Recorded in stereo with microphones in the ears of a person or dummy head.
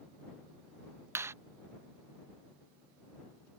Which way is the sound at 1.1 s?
15° right (ahead or behind).